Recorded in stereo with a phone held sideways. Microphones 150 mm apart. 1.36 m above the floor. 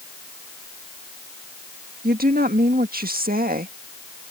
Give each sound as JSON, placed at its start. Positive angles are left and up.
{"t": 2.0, "sound": "a woman speaking", "side_deg": -80}